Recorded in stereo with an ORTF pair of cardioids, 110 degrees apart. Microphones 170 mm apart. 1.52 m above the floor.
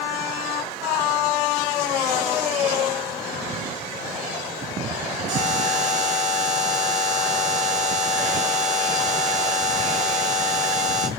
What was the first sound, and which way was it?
A buzzer, 45° right.